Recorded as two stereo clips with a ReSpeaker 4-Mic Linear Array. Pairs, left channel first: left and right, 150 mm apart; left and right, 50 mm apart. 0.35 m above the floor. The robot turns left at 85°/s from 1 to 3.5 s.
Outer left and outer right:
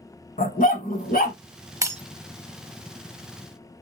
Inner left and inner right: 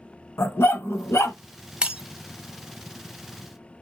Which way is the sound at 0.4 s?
65° left (ahead or behind).